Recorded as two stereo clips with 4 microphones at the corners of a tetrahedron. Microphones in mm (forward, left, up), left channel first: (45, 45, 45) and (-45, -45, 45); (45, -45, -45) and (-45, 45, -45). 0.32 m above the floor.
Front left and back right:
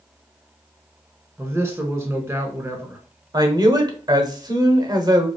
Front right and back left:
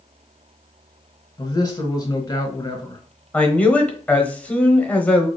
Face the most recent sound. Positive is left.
turn(degrees=-110)